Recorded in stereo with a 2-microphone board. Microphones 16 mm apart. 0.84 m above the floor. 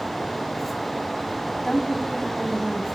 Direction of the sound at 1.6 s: 30° left (ahead or behind).